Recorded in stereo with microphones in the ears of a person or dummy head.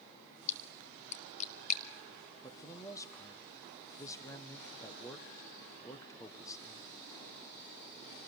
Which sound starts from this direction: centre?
A man speaking, at 2.4 s.